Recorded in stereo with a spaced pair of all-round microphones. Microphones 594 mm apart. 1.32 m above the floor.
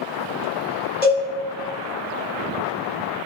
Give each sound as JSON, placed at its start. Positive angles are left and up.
{"t": 1.0, "sound": "a cowbell", "side_deg": 75, "distance_m": 1.7}